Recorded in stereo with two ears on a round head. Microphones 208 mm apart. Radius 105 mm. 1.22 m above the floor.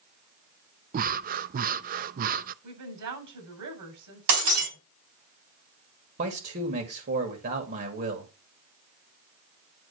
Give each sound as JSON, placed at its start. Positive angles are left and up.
{"t": 0.9, "sound": "breathing", "side_deg": -35, "distance_m": 0.5}
{"t": 2.6, "sound": "a woman speaking", "side_deg": -80, "distance_m": 7.5}
{"t": 4.3, "sound": "breaking glass", "side_deg": -70, "distance_m": 3.5}
{"t": 6.2, "sound": "a man speaking", "side_deg": -40, "distance_m": 2.0}